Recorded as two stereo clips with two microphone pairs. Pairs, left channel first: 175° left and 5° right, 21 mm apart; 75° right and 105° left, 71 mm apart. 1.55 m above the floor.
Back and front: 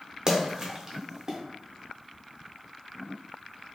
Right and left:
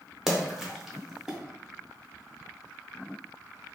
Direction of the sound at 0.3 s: 30° left.